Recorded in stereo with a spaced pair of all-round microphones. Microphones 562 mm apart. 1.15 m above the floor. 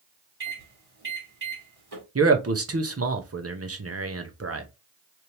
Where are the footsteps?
No footsteps in this recording.